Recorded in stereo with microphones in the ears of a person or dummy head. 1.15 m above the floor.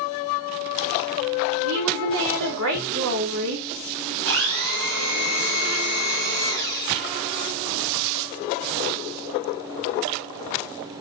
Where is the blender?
65° right (ahead or behind), 2.5 m.